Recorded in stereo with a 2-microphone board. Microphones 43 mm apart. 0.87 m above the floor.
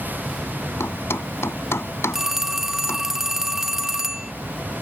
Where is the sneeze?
No sneeze in this recording.